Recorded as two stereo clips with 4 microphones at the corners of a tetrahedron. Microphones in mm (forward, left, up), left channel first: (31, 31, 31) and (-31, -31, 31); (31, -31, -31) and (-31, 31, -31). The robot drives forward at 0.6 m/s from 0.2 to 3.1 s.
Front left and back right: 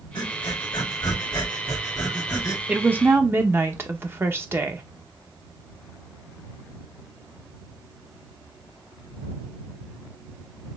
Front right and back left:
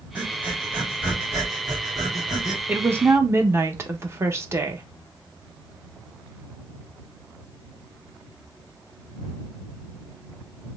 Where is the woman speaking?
165° left, 0.5 m; by 4.8 s 175° left, 0.7 m.